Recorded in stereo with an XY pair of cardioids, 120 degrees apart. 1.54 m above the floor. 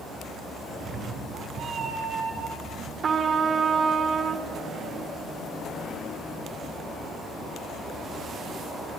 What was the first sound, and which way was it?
A cat meowing, 55° right.